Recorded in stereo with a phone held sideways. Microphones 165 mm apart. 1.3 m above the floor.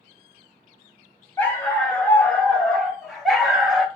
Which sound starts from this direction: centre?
A dog barking, at 1.4 s.